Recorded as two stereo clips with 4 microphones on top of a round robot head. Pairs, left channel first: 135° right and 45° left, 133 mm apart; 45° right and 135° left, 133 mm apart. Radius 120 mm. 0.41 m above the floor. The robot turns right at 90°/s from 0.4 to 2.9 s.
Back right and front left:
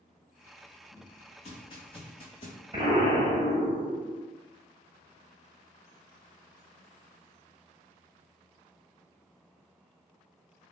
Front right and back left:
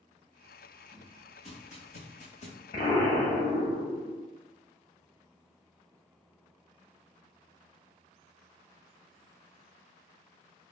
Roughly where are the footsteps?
Behind right.